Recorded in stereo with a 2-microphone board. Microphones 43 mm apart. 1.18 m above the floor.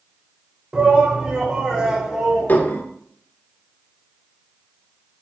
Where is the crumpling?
I don't hear crumpling.